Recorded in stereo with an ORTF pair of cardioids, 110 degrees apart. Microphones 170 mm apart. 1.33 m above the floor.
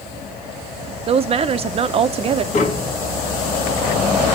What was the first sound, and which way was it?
A woman speaking, 35° right.